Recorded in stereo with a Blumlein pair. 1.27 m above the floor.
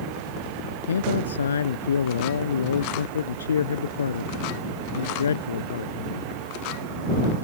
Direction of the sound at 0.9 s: 70° left.